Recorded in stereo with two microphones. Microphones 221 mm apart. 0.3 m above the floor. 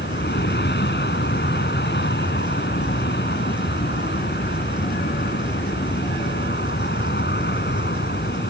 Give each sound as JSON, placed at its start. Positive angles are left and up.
{"t": 0.0, "sound": "an aircraft", "side_deg": 50}